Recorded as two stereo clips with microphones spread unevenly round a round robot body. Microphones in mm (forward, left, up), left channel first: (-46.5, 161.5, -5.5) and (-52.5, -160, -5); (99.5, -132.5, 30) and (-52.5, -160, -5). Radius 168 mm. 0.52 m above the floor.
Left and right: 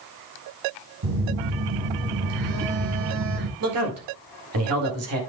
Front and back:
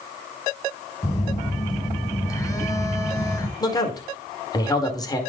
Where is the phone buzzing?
60° right, 1.9 m.